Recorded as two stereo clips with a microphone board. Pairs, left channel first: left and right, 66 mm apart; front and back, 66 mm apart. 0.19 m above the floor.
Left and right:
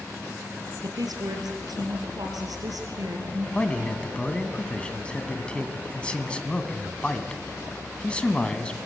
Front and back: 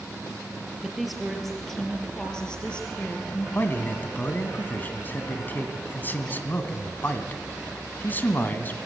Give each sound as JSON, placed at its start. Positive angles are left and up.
{"t": 0.8, "sound": "a woman speaking", "azimuth_deg": -90, "distance_m": 4.0}
{"t": 3.5, "sound": "a man speaking", "azimuth_deg": 30, "distance_m": 1.8}